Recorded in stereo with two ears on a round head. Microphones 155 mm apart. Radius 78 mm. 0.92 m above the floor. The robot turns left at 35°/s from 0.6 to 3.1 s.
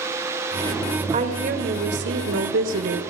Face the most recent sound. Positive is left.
turn(degrees=-105)